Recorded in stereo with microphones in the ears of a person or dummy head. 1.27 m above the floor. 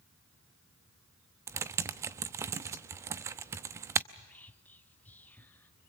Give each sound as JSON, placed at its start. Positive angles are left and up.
{"t": 1.5, "sound": "typing on a keyboard", "side_deg": -20, "distance_m": 0.7}
{"t": 4.1, "sound": "whispering", "side_deg": 10, "distance_m": 0.6}